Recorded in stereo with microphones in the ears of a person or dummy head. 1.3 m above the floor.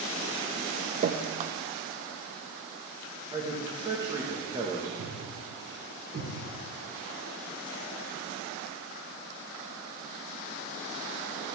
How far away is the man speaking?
About 1.6 m.